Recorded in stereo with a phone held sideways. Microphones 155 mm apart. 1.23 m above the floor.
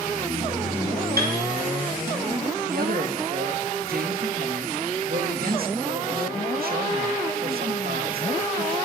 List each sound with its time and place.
1.2 s a piano: 85° right, 4 m
2.7 s a man speaking: 75° right (ahead or behind), 2 m